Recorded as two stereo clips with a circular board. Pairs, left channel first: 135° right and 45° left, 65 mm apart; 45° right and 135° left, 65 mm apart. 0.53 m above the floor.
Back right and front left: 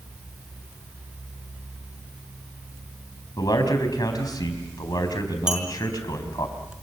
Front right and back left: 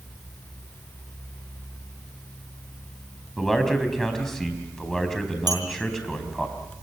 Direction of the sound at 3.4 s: 130° right.